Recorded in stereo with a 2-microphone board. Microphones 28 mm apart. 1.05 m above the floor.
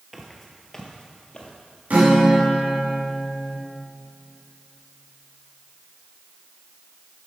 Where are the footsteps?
5° right (ahead or behind), 1.3 m; by 1.5 s 40° left (ahead or behind), 1.6 m.